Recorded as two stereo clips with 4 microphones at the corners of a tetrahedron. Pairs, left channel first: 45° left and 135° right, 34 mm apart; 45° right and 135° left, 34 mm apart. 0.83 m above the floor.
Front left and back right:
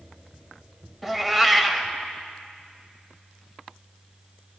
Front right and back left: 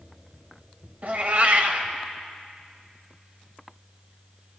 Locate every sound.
1.0 s a cat meowing: 135° left, 0.8 m